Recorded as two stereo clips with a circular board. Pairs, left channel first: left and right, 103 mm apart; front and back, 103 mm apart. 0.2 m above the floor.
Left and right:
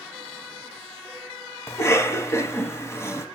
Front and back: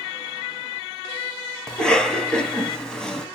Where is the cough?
75° left, 1.0 m.